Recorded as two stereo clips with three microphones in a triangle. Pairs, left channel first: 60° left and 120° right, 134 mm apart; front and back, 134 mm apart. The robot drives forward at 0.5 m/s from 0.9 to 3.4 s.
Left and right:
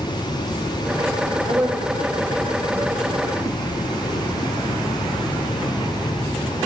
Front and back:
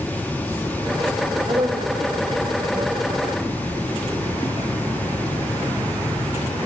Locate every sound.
1.5 s a woman speaking: 175° left, 0.9 m